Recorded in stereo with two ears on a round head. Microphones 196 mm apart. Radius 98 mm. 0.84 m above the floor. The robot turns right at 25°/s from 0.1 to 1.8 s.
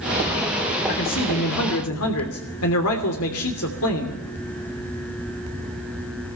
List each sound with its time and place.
0.9 s a man speaking: 60° left (ahead or behind), 3 m; by 4.2 s 75° left (ahead or behind), 3 m